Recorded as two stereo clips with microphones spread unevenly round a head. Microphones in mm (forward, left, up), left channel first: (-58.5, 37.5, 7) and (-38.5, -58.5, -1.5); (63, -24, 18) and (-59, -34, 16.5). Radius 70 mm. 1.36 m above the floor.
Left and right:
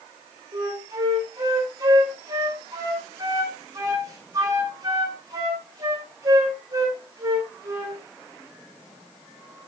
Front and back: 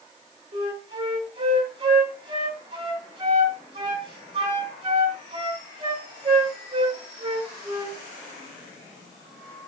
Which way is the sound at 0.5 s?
125° right.